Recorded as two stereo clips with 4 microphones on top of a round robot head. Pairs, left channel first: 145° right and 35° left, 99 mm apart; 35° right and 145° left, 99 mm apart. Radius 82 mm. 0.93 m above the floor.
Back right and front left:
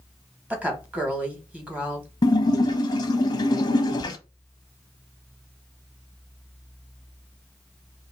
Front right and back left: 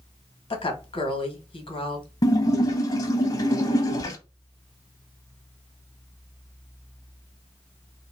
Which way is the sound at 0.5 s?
40° right.